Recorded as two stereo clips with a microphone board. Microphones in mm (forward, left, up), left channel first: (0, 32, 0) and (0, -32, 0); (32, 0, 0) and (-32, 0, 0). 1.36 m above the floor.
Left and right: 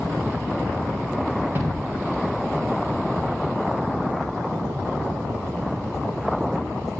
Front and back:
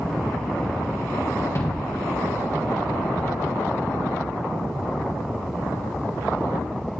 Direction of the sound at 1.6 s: 40° right.